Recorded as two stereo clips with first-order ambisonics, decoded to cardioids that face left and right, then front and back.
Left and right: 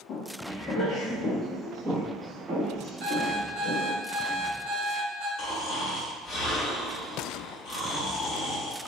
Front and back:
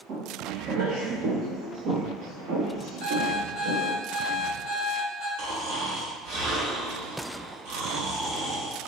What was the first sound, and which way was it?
Footsteps, 135° left.